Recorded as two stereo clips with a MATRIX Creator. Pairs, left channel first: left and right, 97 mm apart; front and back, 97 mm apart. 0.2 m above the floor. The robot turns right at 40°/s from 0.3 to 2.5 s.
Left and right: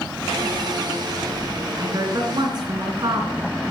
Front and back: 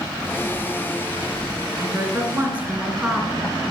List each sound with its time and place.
1.8 s a woman speaking: 135° right, 3 m; by 3.5 s 105° right, 3 m